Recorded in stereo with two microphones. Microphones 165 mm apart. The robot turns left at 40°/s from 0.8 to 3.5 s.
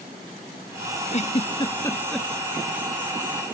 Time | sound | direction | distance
1.1 | a giggle | 45° left (ahead or behind) | ?